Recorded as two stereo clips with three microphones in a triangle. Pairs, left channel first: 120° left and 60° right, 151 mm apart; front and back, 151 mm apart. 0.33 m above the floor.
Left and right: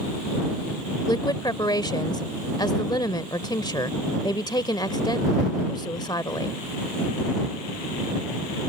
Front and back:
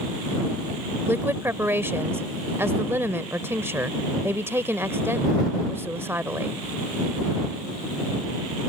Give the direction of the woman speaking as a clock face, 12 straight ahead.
8 o'clock.